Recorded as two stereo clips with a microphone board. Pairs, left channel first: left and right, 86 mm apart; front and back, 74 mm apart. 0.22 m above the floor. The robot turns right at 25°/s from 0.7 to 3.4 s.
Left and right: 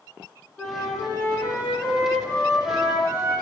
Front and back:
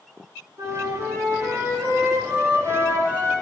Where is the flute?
175° left, 2.0 m; by 3.3 s 115° right, 2.0 m.